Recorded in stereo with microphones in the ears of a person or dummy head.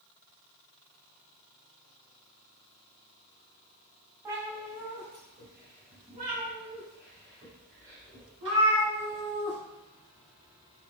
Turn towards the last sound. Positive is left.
turn(degrees=-20)  # may be behind; listen again after turning